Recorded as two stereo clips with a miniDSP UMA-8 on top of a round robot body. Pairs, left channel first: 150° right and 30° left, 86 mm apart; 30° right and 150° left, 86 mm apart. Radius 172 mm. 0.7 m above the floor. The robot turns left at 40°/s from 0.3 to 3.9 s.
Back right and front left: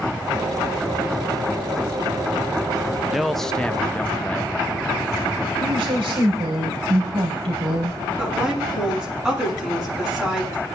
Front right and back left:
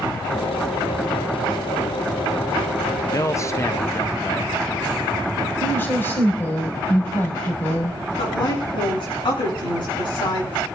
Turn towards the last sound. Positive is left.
turn(degrees=-55)